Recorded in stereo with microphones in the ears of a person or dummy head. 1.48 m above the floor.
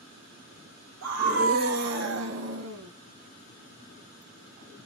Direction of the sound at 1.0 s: 70° right (ahead or behind).